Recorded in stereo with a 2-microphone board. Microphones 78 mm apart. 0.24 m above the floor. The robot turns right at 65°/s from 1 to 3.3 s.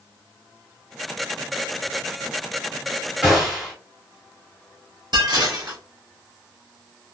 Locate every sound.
3.2 s a gunshot: 5° right (ahead or behind), 1.5 m
5.1 s dishes clattering: 60° right (ahead or behind), 1.4 m